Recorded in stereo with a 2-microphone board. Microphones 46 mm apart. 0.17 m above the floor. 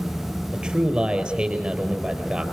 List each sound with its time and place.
0.5 s a man speaking: 20° right (ahead or behind), 4 m